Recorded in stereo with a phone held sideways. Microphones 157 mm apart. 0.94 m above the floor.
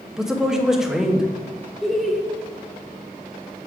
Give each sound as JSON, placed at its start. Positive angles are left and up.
{"t": 0.2, "sound": "a man speaking", "side_deg": -5, "distance_m": 0.9}
{"t": 1.8, "sound": "laughter", "side_deg": 0, "distance_m": 0.8}